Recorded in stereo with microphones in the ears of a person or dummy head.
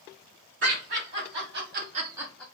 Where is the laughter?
60° right (ahead or behind), 1.6 m; by 2.4 s 5° left (ahead or behind), 0.5 m.